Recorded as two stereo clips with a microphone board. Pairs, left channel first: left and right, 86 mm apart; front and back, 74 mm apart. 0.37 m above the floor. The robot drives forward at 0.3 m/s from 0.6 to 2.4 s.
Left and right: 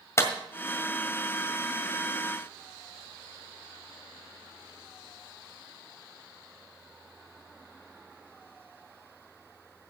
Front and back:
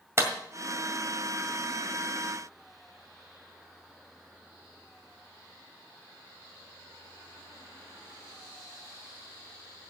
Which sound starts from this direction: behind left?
A clap, at 0.2 s.